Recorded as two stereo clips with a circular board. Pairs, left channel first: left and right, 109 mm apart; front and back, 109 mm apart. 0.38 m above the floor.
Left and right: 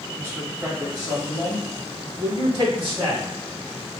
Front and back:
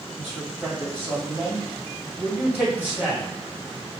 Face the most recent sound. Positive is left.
turn(degrees=-110)